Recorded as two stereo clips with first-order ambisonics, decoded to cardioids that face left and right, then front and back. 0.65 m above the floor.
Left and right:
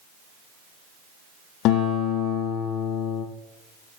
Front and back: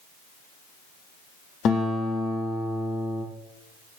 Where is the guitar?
50° left, 5.5 m.